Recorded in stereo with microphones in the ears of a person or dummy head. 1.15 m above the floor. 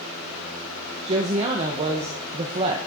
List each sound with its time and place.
1.1 s a woman speaking: 30° right (ahead or behind), 0.6 m